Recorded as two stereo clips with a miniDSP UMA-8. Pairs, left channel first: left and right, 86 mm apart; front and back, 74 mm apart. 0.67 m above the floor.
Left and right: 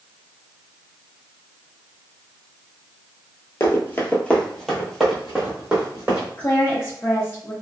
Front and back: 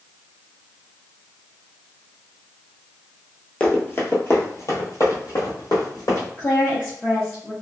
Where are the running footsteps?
60° left, 0.8 m; by 6.3 s 20° right, 1.6 m.